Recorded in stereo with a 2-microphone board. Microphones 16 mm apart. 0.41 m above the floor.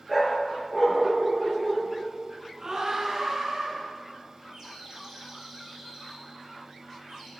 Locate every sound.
0.1 s a dog barking: 20° right (ahead or behind), 3 m
2.6 s a scream: 50° right (ahead or behind), 4.5 m
4.5 s a bird: 45° right (ahead or behind), 6 m